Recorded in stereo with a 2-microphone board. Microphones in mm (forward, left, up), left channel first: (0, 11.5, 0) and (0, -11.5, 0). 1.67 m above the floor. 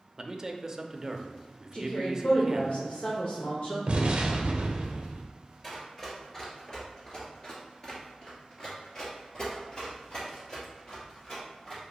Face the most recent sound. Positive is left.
turn(degrees=30)  # may be behind; listen again after turning